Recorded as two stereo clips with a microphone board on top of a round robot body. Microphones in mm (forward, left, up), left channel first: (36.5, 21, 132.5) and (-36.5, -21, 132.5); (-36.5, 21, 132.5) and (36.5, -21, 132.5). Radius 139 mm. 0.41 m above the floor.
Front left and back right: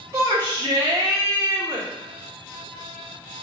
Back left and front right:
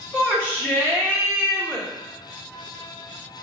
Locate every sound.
0.1 s a shout: 100° right, 1.3 m